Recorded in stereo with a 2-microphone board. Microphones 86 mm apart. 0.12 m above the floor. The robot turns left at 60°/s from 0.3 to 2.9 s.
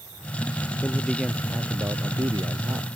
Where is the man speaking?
15° left; by 2.9 s 110° right.